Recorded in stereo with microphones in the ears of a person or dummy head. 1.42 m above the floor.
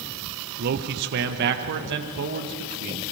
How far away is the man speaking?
About 1.1 m.